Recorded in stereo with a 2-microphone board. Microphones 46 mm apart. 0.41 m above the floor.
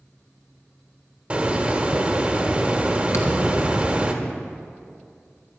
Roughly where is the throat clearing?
I don't hear throat clearing.